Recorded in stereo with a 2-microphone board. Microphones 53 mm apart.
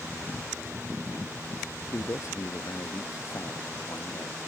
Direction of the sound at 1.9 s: 70° left (ahead or behind).